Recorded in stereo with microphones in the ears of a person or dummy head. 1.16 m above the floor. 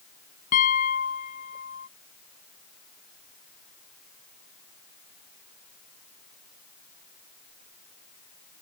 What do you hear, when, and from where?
0.5 s a piano: 45° left (ahead or behind)